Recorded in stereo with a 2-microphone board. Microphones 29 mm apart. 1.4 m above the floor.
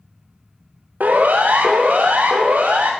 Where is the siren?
70° right (ahead or behind), 2.5 m; by 2.9 s 75° right (ahead or behind), 4.5 m.